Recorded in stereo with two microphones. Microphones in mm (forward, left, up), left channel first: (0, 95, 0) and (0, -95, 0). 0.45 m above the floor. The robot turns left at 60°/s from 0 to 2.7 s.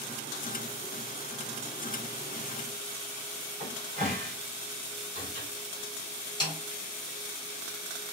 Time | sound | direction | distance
3.6 | a cupboard door | 40° right (ahead or behind) | 1.3 m
6.4 | a snare drum | 25° left (ahead or behind) | 1.7 m